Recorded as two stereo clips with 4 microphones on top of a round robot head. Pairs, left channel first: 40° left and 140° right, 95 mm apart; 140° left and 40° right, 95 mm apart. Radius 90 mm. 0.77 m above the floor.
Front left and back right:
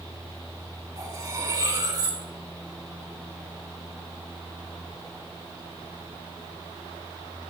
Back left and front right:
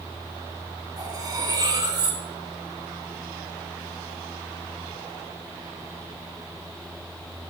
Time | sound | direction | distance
1.0 | cutlery clinking | 90° right | 5.5 m